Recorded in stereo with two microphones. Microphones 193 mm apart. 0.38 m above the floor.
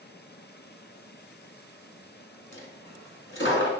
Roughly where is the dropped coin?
Left.